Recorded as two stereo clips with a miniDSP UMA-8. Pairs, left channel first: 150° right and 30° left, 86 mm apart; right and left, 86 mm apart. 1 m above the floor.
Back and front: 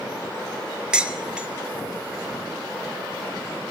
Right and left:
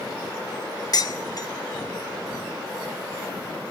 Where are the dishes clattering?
50° right, 0.9 m.